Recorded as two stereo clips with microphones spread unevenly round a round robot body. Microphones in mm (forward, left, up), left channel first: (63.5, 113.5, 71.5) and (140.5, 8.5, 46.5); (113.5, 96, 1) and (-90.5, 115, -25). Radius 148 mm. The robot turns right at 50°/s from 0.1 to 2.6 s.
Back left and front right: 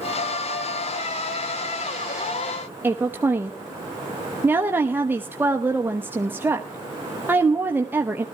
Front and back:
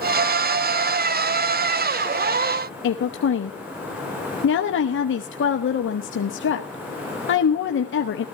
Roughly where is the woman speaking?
Ahead.